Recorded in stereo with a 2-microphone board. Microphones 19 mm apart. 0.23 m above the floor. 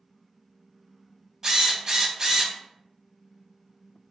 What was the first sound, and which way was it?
A drill, 25° right (ahead or behind).